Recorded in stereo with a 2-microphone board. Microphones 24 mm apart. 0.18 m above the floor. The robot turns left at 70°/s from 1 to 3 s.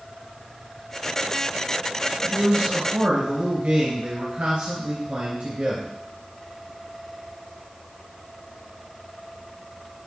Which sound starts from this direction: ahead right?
A man speaking, at 2.2 s.